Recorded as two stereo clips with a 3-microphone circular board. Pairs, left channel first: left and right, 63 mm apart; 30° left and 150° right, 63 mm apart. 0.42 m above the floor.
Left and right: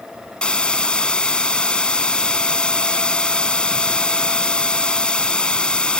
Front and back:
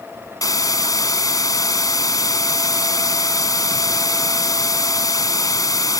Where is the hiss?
15° left.